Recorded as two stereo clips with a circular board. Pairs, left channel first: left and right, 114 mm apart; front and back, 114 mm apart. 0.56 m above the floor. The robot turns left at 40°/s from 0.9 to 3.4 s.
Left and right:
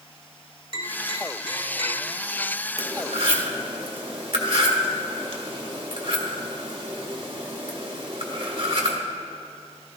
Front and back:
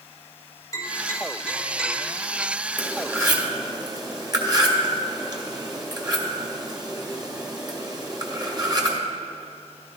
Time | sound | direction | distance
0.7 | tapping | 55° right | 3.5 m
2.8 | cutlery clinking | 105° right | 1.4 m